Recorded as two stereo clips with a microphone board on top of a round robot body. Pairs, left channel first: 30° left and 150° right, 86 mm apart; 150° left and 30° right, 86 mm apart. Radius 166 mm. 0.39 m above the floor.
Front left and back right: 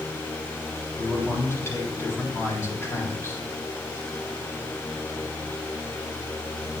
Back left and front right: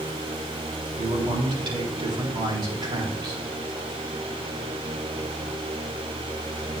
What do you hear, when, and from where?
1.0 s a man speaking: 30° right, 4 m